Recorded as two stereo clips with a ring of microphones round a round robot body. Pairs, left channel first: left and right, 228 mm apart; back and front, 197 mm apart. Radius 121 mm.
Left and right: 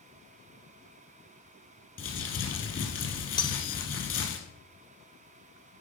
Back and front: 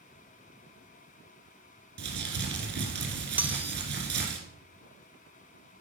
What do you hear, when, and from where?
2.0 s crumpling: 35° left, 2.5 m
3.4 s cutlery clinking: 65° left, 0.6 m